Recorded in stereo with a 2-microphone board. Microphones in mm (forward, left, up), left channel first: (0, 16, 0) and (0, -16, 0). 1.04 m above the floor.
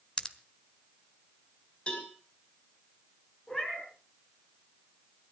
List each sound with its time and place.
0.2 s a pop: 30° left (ahead or behind), 1.2 m
1.9 s a cowbell: 30° left (ahead or behind), 5.5 m
3.5 s a cat meowing: 20° left (ahead or behind), 5 m